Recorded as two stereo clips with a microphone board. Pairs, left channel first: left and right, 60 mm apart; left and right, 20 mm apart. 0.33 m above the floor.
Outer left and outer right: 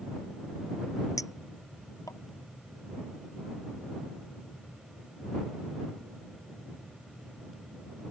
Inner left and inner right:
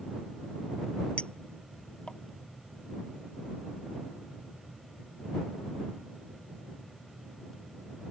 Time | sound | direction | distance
1.2 | a clink | 70° left (ahead or behind) | ?